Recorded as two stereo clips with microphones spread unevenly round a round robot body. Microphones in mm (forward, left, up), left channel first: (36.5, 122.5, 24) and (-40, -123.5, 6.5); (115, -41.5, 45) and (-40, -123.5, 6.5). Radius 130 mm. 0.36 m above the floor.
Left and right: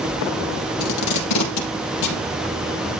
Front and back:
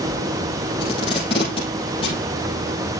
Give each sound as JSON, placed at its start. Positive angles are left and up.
{"t": 0.8, "sound": "tape being pulled", "azimuth_deg": 100, "distance_m": 4.5}